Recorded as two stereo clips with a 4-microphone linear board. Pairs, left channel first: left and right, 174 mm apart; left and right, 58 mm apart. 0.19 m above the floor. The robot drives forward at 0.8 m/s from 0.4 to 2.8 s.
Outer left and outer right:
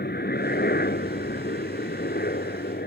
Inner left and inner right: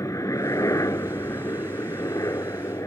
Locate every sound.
0.0 s a helicopter: 60° left (ahead or behind)